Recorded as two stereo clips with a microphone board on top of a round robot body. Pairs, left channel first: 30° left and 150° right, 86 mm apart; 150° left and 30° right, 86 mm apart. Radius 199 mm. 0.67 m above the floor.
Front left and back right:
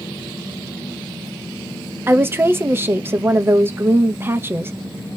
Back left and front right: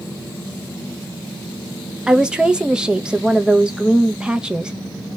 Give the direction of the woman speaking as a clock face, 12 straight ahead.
3 o'clock.